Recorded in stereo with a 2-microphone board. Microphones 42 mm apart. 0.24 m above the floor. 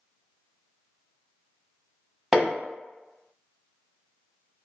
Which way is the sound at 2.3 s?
10° right (ahead or behind).